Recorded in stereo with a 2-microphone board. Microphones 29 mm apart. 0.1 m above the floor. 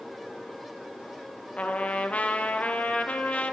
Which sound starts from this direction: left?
A trumpet, at 1.6 s.